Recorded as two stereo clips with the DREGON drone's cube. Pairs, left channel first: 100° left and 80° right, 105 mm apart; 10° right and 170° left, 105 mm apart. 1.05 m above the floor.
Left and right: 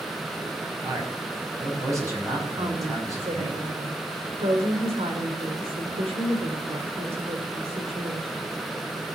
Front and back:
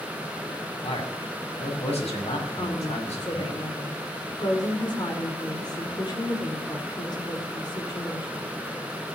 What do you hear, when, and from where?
0.8 s a man speaking: 20° right, 5.5 m
2.5 s a woman speaking: 60° right, 4 m